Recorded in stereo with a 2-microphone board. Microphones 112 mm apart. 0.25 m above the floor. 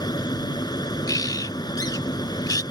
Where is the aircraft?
40° left (ahead or behind).